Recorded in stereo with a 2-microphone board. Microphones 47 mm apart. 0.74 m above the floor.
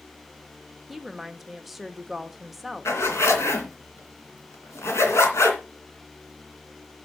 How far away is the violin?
No violin in this recording.